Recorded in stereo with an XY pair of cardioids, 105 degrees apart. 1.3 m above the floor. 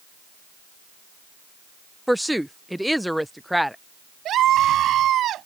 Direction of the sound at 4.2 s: 70° right.